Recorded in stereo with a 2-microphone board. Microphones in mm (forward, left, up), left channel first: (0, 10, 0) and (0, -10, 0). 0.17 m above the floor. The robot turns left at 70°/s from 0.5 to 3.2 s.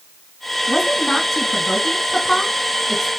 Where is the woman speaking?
5° left (ahead or behind), 1.7 m; by 3.1 s centre (ahead or behind), 1.7 m.